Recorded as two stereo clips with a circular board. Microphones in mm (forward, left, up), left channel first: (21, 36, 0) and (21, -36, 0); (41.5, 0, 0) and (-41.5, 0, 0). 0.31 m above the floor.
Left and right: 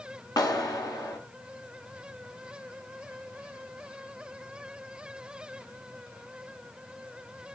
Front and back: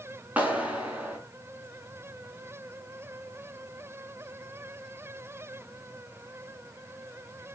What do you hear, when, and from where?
0.4 s a clap: 110° left, 2.5 m